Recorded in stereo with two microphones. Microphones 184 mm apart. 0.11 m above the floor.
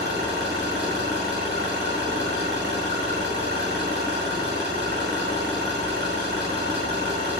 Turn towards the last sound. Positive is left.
turn(degrees=-60)  # may be behind; listen again after turning